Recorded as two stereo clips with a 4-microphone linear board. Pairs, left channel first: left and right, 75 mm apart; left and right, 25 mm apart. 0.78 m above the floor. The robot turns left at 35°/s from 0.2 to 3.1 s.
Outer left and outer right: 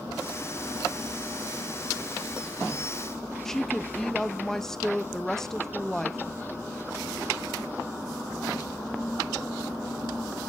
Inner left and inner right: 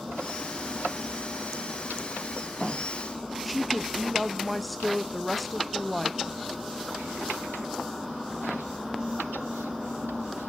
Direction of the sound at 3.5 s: 5° left (ahead or behind).